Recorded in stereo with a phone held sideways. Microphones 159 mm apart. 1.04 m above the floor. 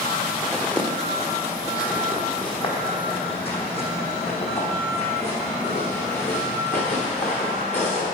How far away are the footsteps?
About 1.2 m.